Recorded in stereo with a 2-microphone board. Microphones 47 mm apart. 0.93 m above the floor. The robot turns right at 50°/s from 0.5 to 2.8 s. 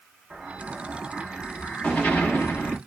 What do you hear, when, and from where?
0.3 s an explosion: 35° right, 1.4 m; by 2.8 s 75° left, 1.4 m